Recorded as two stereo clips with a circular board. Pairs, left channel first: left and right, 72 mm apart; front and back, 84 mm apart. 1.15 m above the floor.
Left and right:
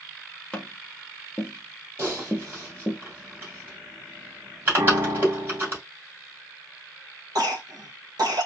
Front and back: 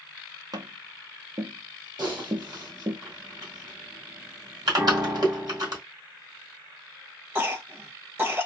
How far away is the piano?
About 1.3 m.